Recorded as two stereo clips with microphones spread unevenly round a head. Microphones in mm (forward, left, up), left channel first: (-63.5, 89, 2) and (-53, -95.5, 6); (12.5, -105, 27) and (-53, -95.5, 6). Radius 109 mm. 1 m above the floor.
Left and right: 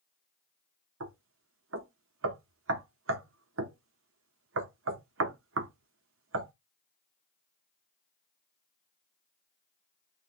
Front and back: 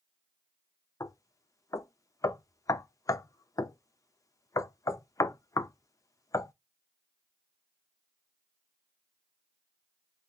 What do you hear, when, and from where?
1.0 s knocking: 55° right, 0.6 m